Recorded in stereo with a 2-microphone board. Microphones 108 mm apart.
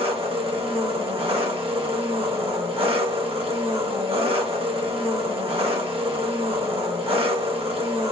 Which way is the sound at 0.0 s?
60° right (ahead or behind).